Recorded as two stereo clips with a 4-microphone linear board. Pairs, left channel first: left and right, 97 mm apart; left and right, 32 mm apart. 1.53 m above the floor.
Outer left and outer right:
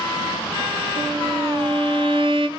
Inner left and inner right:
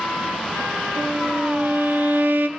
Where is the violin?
65° right (ahead or behind), 1.2 m.